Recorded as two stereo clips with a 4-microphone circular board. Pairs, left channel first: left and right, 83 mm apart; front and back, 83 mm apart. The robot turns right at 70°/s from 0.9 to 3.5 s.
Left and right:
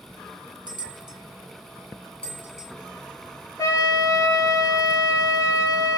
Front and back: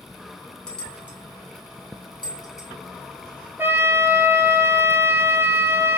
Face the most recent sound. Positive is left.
turn(degrees=125)